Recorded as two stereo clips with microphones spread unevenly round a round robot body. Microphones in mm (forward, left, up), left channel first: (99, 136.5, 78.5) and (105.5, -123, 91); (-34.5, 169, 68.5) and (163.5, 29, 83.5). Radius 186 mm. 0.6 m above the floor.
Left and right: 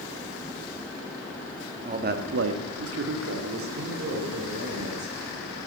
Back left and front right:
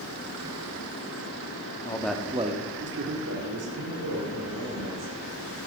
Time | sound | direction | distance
1.8 | a man speaking | 155° right | 1.3 m